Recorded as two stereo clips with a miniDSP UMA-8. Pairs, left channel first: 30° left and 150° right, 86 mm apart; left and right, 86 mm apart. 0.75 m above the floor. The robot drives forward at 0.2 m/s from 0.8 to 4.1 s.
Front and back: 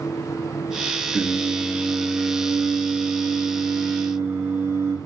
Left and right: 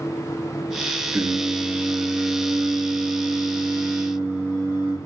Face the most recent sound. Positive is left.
turn(degrees=-140)